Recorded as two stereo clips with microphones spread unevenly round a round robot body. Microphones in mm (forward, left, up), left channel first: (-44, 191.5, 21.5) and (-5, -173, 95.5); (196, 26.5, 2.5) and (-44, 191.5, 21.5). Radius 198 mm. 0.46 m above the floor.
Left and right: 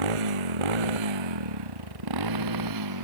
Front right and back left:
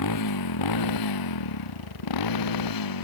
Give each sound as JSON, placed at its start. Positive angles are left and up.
{"t": 0.0, "sound": "a motorcycle", "azimuth_deg": -85}